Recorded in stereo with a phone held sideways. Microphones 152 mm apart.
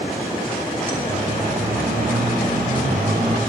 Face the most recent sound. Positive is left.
turn(degrees=-80)